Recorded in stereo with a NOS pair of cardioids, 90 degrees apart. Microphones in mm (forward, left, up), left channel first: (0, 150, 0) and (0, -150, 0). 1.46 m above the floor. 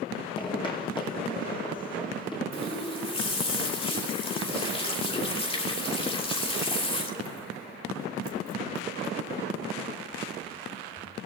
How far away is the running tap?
About 3 m.